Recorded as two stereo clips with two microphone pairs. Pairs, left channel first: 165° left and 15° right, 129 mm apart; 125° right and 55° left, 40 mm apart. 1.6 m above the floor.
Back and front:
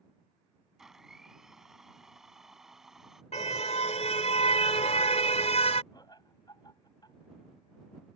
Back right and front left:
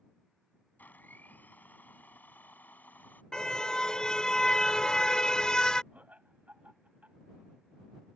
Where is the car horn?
170° left.